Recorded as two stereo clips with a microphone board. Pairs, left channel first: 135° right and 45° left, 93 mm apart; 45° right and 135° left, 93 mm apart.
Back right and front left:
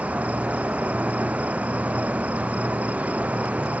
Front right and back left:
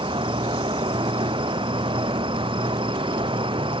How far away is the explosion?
No explosion in this recording.